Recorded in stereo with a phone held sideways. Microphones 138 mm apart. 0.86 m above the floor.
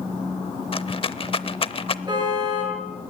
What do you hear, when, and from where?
0.7 s a rattle: 40° left (ahead or behind), 0.7 m
2.1 s a car horn: 30° right (ahead or behind), 9 m